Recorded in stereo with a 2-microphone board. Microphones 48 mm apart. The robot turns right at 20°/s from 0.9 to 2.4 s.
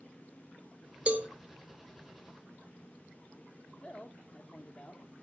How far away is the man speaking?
About 0.9 m.